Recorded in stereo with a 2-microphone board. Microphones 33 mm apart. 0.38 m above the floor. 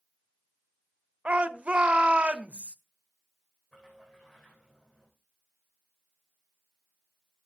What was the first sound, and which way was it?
A shout, 40° right (ahead or behind).